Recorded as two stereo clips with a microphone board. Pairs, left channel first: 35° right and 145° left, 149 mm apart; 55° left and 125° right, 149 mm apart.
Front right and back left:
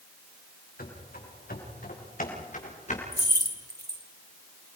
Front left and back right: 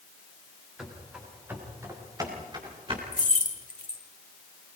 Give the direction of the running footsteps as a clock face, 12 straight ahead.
1 o'clock.